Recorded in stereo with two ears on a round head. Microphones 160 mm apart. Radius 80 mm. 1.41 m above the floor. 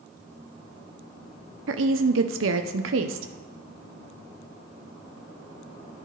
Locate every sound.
1.7 s a woman speaking: 75° right (ahead or behind), 0.7 m